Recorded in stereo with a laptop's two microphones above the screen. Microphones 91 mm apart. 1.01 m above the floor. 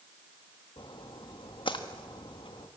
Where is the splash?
65° left (ahead or behind), 1.4 m.